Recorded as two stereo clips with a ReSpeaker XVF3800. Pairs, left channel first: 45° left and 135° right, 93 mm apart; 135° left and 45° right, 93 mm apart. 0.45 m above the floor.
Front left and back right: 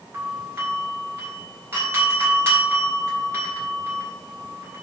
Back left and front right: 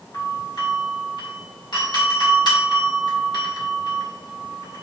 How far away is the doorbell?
About 3.5 m.